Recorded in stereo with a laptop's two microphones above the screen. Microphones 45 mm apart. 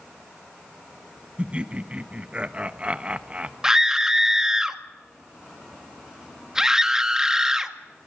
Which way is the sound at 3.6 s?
15° right (ahead or behind).